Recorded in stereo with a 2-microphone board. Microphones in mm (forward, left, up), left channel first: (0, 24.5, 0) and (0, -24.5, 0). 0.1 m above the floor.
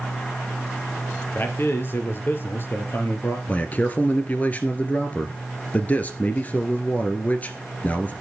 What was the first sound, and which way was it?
A man speaking, 45° left (ahead or behind).